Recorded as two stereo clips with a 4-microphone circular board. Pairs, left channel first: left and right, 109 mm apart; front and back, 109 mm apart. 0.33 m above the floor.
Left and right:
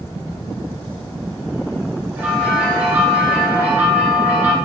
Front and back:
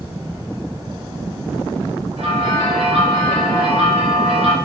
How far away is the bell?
About 3 m.